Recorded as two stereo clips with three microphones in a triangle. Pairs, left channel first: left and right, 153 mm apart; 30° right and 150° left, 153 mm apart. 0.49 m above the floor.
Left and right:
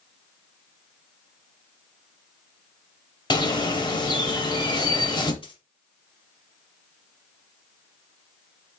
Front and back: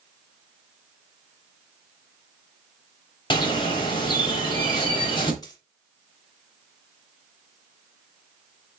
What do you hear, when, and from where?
3.3 s a bird: 30° left, 0.9 m
5.4 s a dropped coin: 35° left, 1.0 m